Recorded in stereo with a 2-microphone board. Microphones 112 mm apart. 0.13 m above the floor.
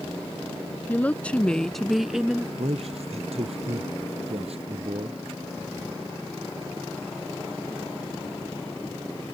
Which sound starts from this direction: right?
A man speaking, at 2.6 s.